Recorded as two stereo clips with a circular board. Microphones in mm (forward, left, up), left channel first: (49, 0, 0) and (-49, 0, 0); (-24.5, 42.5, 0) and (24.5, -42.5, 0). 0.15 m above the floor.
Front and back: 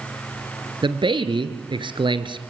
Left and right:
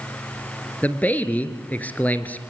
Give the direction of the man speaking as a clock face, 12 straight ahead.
6 o'clock.